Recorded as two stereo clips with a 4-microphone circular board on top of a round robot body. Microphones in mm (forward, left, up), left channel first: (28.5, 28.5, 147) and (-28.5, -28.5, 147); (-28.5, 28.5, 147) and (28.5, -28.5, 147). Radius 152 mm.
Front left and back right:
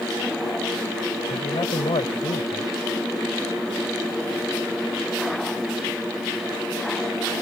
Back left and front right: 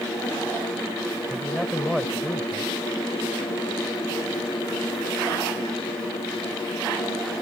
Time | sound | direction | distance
1.3 | a man speaking | 50° left | ?